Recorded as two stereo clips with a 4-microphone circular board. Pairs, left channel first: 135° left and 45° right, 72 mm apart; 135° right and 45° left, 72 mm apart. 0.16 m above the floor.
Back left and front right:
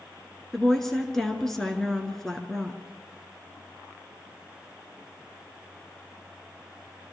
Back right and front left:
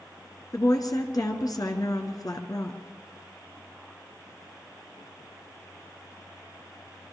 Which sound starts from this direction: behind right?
A woman speaking, at 0.5 s.